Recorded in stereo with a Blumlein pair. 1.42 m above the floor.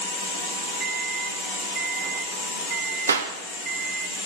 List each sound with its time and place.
0.8 s a microwave: 25° right, 0.5 m
3.1 s a clap: 70° right, 1.1 m